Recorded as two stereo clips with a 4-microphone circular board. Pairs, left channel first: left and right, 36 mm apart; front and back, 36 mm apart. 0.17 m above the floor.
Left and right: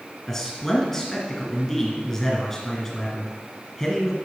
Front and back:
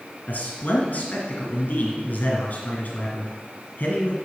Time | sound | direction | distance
0.3 | a man speaking | 20° left | 2.5 m